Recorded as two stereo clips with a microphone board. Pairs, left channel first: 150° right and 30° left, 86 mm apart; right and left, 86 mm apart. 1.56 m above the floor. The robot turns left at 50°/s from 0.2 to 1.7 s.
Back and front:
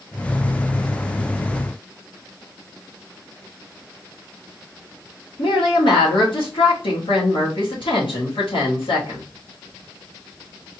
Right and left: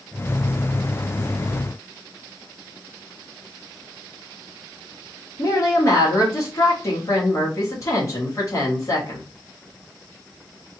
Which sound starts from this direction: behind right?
A woman speaking, at 5.4 s.